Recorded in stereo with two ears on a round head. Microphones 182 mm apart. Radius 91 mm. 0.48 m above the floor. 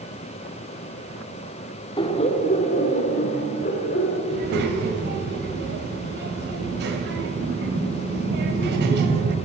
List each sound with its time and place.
2.0 s laughter: 25° left (ahead or behind), 1.1 m; by 4.2 s 45° left (ahead or behind), 2.5 m
4.3 s a child speaking: 55° right (ahead or behind), 2.5 m